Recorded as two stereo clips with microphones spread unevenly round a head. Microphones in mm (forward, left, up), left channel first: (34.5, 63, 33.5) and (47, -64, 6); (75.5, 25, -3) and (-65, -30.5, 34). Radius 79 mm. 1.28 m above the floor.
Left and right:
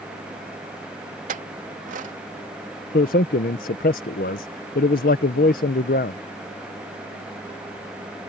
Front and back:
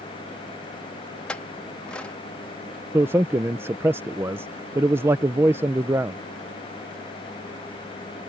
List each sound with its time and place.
1.3 s a clink: 65° right
2.9 s a man speaking: 125° left